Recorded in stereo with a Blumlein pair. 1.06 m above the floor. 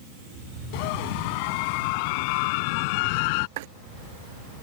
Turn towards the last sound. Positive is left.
turn(degrees=-50)